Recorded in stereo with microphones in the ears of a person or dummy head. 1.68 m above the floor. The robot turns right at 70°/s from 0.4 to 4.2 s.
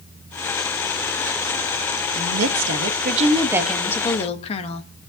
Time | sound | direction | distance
2.1 | a woman speaking | 110° right | 1.3 m